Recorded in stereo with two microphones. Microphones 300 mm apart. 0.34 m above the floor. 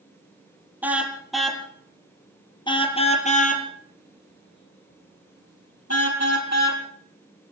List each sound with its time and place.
0.8 s a car horn: 5° right (ahead or behind), 3.5 m; by 6.8 s 60° left (ahead or behind), 4 m